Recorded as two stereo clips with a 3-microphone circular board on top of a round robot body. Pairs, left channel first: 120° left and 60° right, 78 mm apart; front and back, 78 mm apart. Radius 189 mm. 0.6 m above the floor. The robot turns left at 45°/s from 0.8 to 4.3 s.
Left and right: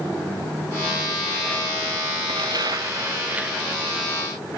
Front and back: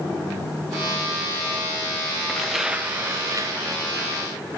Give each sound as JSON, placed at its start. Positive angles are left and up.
{"t": 2.3, "sound": "tearing paper", "azimuth_deg": -85}